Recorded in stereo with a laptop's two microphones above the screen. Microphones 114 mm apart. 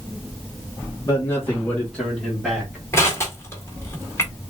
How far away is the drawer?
I don't hear a drawer.